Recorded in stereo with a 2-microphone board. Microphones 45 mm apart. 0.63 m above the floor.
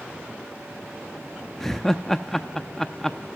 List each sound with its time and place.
1.6 s laughter: 5° left (ahead or behind), 0.7 m